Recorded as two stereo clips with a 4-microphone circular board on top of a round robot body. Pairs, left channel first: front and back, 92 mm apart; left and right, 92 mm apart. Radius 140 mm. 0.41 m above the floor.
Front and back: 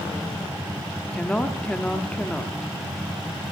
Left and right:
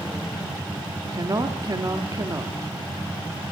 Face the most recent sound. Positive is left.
turn(degrees=-70)